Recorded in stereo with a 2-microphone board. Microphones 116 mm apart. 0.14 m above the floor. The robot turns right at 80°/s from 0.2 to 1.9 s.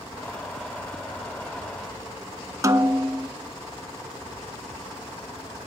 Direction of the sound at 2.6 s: 30° right (ahead or behind).